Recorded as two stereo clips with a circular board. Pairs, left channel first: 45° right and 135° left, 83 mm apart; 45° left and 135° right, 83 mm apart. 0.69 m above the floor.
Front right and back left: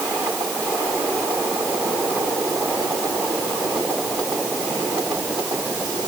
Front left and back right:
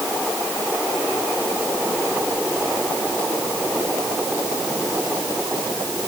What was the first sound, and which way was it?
Only background noise.